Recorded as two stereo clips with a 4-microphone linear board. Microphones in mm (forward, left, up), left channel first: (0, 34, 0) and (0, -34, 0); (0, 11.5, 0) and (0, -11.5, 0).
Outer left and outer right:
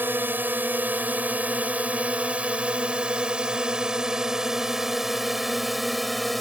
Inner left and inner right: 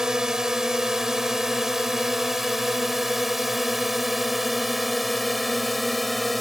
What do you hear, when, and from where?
0.0 s a drone: 30° right (ahead or behind); by 6.4 s centre (ahead or behind)